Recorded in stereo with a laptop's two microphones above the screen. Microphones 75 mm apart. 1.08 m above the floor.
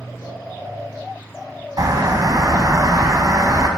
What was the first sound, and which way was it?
A bird, 55° right (ahead or behind).